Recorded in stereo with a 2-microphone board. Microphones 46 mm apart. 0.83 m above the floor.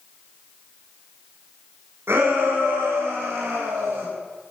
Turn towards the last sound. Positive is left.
turn(degrees=-80)